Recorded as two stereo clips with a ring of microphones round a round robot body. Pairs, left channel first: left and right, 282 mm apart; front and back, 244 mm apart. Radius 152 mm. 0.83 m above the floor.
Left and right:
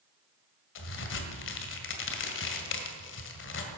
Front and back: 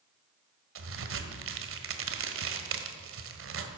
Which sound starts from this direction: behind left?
A crack, at 0.8 s.